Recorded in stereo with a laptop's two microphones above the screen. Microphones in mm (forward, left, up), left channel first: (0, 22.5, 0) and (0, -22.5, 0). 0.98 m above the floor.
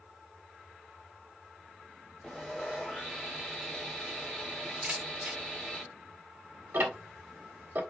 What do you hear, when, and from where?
2.2 s sawing: 10° left (ahead or behind), 1.2 m
4.8 s a camera shutter: 30° right (ahead or behind), 1.0 m
6.7 s ticking: 55° right (ahead or behind), 1.3 m